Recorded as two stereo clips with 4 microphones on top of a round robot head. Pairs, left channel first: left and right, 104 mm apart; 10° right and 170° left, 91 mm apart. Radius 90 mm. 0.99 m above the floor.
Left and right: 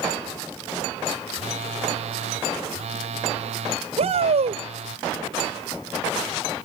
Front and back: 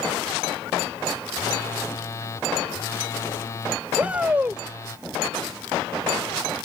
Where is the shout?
110° right.